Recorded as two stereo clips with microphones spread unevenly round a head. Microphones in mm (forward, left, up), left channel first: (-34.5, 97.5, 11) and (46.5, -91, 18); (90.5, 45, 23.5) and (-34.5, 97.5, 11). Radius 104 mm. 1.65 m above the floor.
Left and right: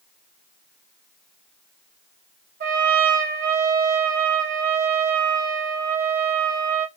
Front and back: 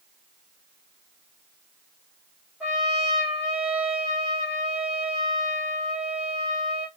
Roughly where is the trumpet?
Behind right.